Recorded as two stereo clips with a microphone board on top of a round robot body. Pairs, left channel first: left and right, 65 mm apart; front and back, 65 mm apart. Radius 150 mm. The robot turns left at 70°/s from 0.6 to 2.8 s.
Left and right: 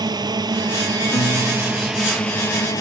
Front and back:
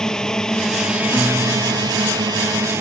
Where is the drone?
80° right; by 2.8 s 125° left.